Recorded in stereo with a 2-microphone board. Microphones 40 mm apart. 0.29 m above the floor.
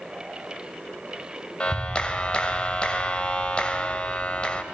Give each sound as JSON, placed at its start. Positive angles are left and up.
{"t": 1.6, "sound": "a clap", "side_deg": 25, "distance_m": 1.4}